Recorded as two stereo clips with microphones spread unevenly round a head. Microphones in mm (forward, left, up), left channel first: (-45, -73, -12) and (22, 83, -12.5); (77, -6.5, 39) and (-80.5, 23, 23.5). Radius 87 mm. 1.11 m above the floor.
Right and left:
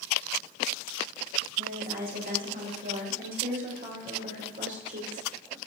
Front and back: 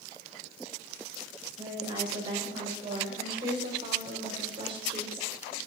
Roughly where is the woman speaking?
Left.